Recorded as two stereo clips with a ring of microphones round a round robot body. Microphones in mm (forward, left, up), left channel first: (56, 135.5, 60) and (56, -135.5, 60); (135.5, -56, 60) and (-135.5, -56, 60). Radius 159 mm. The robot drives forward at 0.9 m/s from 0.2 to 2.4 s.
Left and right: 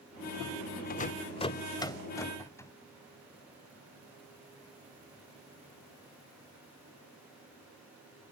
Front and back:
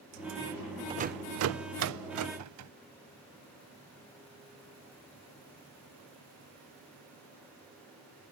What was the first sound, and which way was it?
A rattle, 120° left.